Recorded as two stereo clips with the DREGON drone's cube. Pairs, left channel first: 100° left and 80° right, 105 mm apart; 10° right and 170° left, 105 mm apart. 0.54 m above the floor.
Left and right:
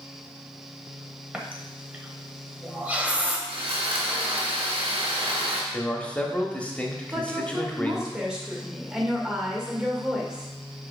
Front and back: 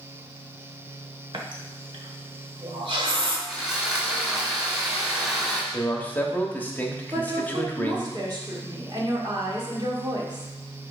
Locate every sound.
1.3 s a running tap: 155° right, 1.2 m
3.5 s sawing: 105° right, 2.5 m
5.7 s a man speaking: 40° left, 1.1 m
7.1 s a woman speaking: 160° right, 1.8 m